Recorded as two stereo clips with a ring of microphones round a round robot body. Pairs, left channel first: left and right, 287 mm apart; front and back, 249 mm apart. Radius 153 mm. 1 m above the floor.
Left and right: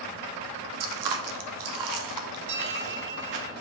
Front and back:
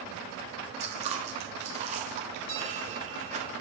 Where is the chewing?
110° right, 1.1 m.